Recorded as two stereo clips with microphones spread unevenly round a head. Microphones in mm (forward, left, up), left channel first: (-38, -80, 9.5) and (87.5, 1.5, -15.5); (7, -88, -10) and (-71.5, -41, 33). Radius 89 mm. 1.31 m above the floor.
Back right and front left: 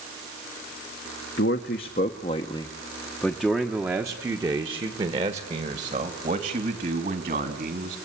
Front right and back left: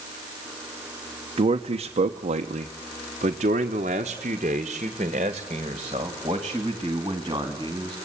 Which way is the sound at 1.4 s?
Straight behind.